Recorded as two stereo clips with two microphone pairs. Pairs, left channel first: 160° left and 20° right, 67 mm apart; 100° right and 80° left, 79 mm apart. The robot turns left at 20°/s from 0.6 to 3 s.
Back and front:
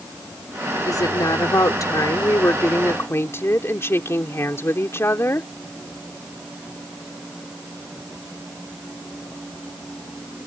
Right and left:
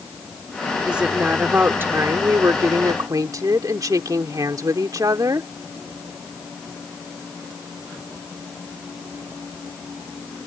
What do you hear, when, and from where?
0.9 s a woman speaking: 160° left; by 5.5 s 115° left